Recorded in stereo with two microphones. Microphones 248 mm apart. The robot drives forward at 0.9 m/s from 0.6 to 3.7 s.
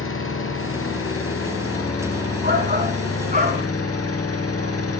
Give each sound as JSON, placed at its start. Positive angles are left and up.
{"t": 0.0, "sound": "an engine running", "side_deg": 65, "distance_m": 5.0}
{"t": 2.4, "sound": "a shout", "side_deg": -40, "distance_m": 5.0}